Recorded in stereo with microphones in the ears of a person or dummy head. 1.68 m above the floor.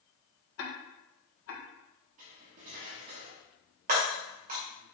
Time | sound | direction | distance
0.6 | ticking | 70° left (ahead or behind) | 1.5 m
2.2 | cutlery clinking | 30° right (ahead or behind) | 1.0 m
3.9 | breaking glass | 40° right (ahead or behind) | 2 m